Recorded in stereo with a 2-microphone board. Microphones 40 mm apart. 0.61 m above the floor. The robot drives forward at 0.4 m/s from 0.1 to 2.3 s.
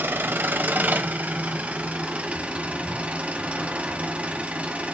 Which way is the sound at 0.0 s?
65° right (ahead or behind).